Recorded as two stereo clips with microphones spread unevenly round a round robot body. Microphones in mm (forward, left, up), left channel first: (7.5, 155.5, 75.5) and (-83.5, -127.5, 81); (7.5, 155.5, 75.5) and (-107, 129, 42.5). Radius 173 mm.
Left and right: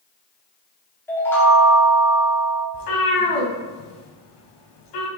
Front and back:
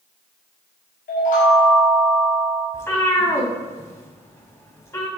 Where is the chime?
10° right, 1.8 m.